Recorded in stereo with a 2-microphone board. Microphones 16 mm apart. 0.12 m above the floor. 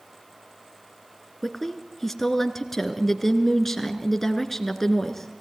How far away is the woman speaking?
About 2.0 m.